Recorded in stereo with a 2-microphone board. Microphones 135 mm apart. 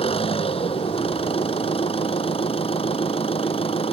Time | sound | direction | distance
0.0 | an engine running | 45° left (ahead or behind) | ?